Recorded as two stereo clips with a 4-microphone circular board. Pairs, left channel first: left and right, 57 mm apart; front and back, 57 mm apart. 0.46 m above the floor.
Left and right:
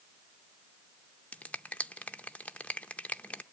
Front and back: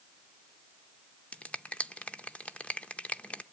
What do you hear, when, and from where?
1.3 s a finger snap: 40° left, 0.6 m